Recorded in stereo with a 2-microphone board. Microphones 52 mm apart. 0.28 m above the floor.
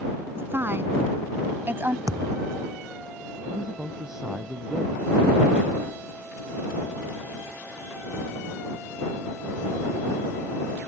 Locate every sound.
0.3 s a woman speaking: 40° right (ahead or behind)
2.1 s a thud: 85° right
3.5 s a man speaking: 10° right (ahead or behind)